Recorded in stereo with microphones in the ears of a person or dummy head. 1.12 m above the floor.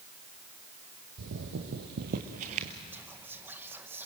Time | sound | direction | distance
1.2 | footsteps | 65° right (ahead or behind) | 3 m
2.9 | whispering | 10° right (ahead or behind) | 0.9 m